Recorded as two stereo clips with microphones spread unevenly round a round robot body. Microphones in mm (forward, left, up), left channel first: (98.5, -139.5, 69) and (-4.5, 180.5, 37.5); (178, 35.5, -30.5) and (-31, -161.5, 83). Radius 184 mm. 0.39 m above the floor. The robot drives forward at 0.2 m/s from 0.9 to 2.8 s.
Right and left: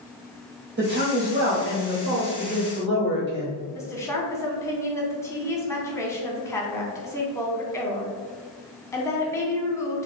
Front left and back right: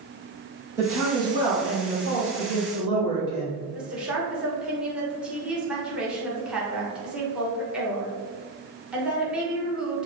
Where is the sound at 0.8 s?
120° left, 1.5 m; by 3.6 s 135° left, 1.7 m.